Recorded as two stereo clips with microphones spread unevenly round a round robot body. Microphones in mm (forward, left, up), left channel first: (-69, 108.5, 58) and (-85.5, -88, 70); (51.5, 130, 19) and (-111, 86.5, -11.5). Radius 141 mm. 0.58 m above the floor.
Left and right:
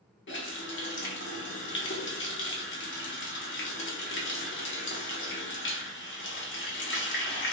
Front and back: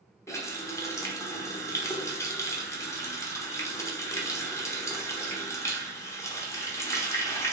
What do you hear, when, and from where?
0.3 s a running tap: 95° left, 1.0 m